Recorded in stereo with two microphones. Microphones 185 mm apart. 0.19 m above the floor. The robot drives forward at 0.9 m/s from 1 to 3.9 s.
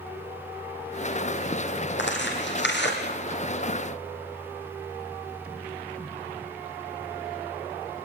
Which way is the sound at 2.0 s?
80° left.